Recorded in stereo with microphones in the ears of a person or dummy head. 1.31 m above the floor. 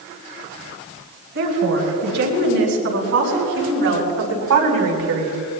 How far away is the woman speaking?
About 6 m.